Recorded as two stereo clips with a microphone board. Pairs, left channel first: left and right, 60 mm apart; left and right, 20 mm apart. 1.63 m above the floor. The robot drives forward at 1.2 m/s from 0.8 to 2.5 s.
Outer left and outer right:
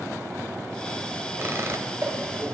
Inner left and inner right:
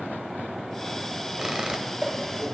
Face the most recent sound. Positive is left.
turn(degrees=-50)  # may be behind; listen again after turning